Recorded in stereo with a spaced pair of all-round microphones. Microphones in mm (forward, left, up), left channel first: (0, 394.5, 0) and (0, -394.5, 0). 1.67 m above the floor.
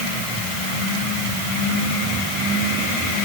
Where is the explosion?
I don't hear an explosion.